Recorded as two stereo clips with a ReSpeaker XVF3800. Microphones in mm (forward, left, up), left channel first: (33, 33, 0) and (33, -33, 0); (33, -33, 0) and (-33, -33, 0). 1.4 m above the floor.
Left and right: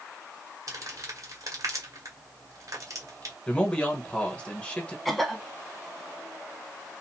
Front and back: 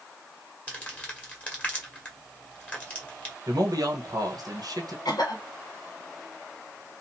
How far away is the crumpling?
About 1.6 m.